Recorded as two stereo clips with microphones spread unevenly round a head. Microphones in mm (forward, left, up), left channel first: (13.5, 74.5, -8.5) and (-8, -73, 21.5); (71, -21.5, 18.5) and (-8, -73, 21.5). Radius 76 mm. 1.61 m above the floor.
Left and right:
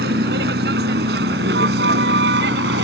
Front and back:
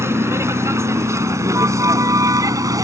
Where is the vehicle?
85° right; by 2.9 s 95° right.